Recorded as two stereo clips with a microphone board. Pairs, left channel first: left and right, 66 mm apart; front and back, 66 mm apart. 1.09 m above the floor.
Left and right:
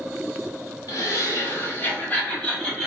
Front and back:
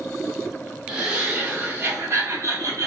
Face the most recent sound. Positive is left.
turn(degrees=170)